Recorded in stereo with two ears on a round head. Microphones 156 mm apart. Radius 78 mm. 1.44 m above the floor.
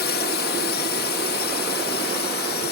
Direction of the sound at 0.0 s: 60° left (ahead or behind).